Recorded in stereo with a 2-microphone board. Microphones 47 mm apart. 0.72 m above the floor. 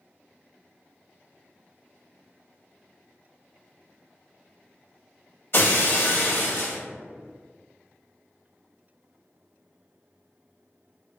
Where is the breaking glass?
55° left (ahead or behind), 0.9 m.